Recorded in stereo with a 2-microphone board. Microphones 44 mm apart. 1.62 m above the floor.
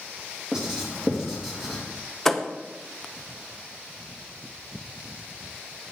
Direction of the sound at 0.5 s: 10° right (ahead or behind).